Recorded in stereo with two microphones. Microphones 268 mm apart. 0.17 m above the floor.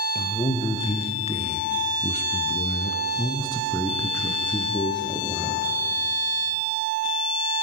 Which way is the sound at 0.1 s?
20° left (ahead or behind).